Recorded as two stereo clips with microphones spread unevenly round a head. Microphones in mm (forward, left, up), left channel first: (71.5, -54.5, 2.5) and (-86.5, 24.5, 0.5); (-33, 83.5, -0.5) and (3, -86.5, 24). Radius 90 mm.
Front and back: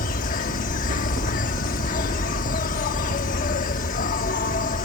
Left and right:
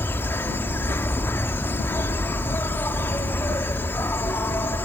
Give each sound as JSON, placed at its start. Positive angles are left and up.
{"t": 0.0, "sound": "an insect", "azimuth_deg": 25}